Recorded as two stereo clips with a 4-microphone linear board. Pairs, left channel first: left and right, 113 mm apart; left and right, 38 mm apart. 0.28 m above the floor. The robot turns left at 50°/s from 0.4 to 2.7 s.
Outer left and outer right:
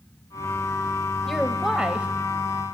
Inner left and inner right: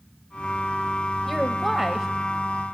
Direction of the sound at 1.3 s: Centre (ahead or behind).